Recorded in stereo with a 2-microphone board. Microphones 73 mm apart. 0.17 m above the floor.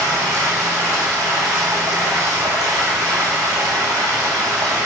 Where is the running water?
70° right (ahead or behind), 7.5 m.